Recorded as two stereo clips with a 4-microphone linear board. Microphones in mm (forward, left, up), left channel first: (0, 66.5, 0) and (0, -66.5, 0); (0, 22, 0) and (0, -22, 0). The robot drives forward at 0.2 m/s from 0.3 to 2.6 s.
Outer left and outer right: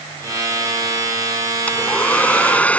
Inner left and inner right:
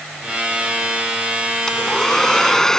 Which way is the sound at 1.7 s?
10° left (ahead or behind).